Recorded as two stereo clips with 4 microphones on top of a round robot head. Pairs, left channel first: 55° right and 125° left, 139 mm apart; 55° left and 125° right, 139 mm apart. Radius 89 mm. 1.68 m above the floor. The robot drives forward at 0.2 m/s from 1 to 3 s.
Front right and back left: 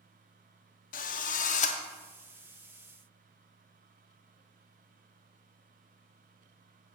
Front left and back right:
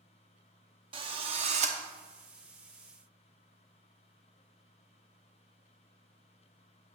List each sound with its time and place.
0.9 s a drill: 75° right, 0.7 m; by 1.8 s 90° right, 0.7 m